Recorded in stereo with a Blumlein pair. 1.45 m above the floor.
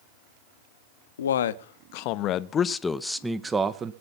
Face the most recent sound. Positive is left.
turn(degrees=-20)